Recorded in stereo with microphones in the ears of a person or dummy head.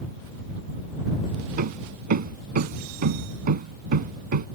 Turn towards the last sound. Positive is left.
turn(degrees=-50)  # may be behind; listen again after turning